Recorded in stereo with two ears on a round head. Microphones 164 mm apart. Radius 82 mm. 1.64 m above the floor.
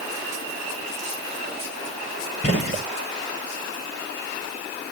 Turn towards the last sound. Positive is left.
turn(degrees=60)  # may be behind; listen again after turning